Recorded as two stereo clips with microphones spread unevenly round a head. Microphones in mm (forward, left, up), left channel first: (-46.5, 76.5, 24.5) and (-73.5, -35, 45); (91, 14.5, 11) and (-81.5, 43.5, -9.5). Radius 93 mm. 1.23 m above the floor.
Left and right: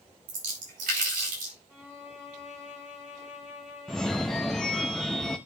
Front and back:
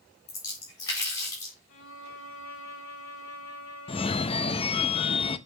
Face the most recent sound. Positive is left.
turn(degrees=-25)